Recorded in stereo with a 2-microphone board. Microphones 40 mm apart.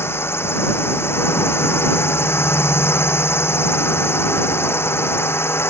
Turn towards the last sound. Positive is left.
turn(degrees=85)